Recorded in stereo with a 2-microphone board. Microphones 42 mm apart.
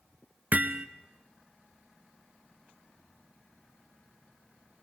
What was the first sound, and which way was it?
Hammering, 35° right (ahead or behind).